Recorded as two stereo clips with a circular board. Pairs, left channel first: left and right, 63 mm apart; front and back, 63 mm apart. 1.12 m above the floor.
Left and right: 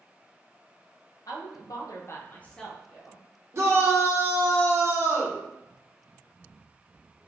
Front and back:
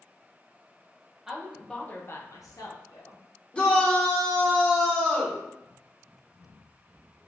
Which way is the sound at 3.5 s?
65° right.